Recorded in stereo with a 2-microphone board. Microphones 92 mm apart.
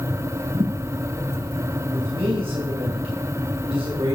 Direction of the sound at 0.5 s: 65° right (ahead or behind).